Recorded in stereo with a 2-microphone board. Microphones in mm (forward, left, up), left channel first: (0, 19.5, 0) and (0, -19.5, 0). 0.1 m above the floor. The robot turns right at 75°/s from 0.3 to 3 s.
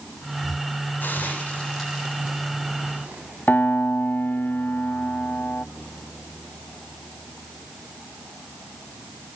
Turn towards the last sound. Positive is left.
turn(degrees=65)  # may be behind; listen again after turning